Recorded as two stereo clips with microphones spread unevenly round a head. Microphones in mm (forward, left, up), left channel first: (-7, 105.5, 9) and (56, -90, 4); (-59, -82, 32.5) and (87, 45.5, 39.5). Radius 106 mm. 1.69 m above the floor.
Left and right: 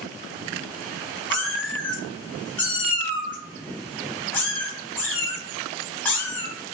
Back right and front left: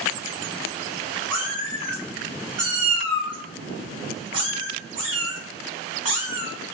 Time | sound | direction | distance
1.3 | a cat meowing | 40° left | 1.1 m